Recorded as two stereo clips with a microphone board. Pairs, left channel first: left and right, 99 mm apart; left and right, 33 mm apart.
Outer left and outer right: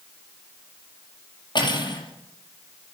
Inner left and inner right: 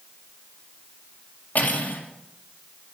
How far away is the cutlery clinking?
About 5 m.